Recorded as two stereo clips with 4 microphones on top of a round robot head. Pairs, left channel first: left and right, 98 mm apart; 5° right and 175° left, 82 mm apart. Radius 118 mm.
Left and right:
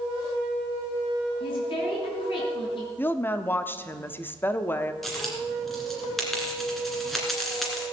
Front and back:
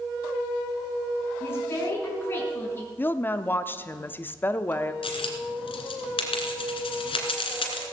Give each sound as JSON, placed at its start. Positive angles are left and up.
{"t": 1.4, "sound": "a woman speaking", "azimuth_deg": 55, "distance_m": 5.0}
{"t": 3.0, "sound": "a woman speaking", "azimuth_deg": 40, "distance_m": 0.9}
{"t": 5.0, "sound": "a dropped coin", "azimuth_deg": 0, "distance_m": 2.0}